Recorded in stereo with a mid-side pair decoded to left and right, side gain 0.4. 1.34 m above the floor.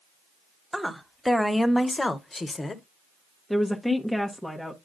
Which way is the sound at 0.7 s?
5° right.